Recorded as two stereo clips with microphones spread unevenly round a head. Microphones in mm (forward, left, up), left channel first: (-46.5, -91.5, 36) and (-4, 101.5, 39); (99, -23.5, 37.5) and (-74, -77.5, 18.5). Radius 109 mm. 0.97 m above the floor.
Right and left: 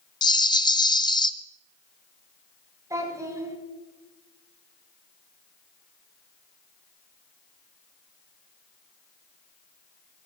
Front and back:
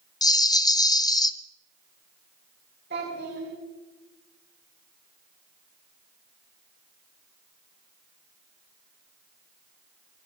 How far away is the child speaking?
About 7.5 m.